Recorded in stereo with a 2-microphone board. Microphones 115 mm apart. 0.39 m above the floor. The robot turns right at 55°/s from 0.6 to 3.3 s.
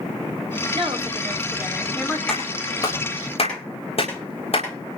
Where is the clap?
5° left (ahead or behind), 9 m; by 5.0 s 60° left (ahead or behind), 9 m.